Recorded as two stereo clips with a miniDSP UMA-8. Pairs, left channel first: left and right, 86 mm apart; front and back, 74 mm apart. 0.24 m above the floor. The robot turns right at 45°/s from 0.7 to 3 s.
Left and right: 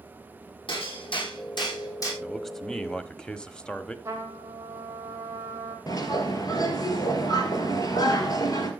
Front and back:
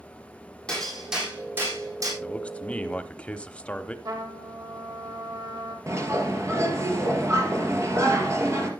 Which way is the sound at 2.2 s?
5° right.